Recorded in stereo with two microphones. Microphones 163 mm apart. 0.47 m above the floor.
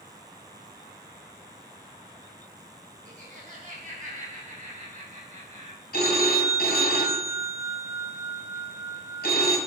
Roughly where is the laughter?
Right.